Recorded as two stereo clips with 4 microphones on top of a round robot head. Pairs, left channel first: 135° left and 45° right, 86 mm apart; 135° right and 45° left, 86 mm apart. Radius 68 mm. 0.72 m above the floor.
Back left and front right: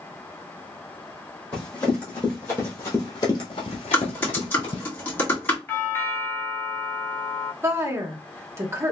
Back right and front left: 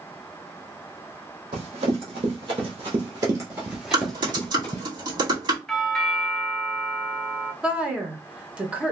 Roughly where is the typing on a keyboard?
Left.